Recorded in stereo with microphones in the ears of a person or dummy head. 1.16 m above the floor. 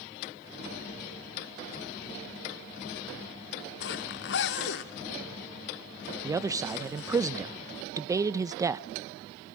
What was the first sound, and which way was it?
A zipper, 65° left (ahead or behind).